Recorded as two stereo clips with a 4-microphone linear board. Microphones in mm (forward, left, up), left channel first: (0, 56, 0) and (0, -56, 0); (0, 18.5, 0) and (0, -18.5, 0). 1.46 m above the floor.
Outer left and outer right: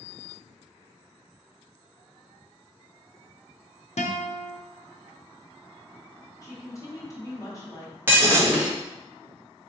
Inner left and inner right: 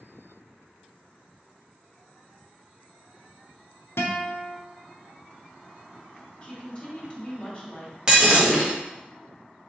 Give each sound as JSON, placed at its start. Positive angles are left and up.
{"t": 4.0, "sound": "a guitar", "side_deg": 80, "distance_m": 0.6}
{"t": 6.4, "sound": "a woman speaking", "side_deg": 30, "distance_m": 1.2}
{"t": 8.1, "sound": "breaking glass", "side_deg": -20, "distance_m": 1.1}